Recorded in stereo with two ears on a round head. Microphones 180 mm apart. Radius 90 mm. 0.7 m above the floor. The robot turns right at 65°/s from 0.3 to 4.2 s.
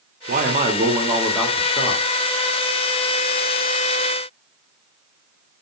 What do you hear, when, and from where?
0.3 s a man speaking: 70° right, 1.6 m; by 2.0 s 40° left, 1.6 m